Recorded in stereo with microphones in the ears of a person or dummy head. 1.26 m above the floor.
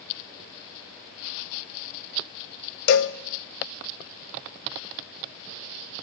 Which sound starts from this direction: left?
A cowbell, at 2.9 s.